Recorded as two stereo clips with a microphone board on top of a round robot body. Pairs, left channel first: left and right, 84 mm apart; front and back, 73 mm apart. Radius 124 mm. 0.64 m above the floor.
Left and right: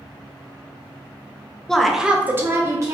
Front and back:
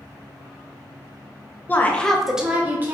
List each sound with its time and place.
1.7 s a woman speaking: 15° left, 0.7 m; by 2.9 s 125° right, 0.9 m